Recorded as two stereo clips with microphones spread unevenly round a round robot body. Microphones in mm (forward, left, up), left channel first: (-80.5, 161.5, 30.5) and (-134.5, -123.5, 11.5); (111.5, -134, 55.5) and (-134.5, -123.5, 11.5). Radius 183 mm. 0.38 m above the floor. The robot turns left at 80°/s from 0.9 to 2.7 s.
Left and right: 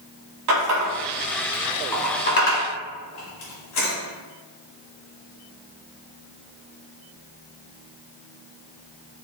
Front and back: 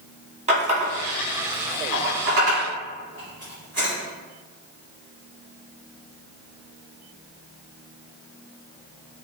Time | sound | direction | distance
0.5 | a running tap | 120° right | 1.7 m